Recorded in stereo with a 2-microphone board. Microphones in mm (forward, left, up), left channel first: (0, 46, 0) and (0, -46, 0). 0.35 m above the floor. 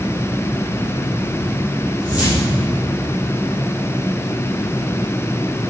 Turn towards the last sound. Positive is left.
turn(degrees=-15)  # may be behind; listen again after turning